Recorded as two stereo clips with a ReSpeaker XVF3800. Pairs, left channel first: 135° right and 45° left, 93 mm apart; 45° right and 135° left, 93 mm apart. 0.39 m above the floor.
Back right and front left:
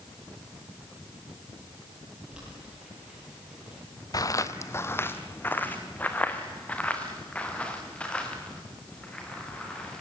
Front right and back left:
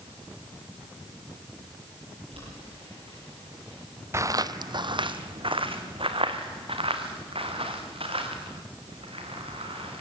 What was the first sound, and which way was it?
Boiling, 130° left.